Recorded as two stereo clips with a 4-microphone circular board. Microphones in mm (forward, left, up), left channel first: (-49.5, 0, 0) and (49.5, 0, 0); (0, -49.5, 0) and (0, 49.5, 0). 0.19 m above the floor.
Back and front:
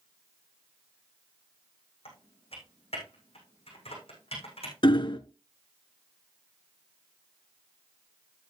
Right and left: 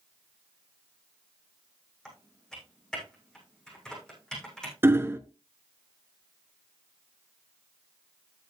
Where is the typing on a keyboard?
175° right, 6.5 m.